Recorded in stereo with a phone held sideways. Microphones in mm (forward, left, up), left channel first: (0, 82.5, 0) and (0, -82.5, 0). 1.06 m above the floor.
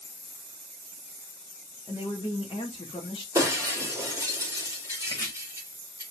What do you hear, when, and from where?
1.9 s a woman speaking: 30° left (ahead or behind), 1.4 m
3.4 s breaking glass: 15° right (ahead or behind), 2.5 m
5.1 s chopping: 25° left (ahead or behind), 1.7 m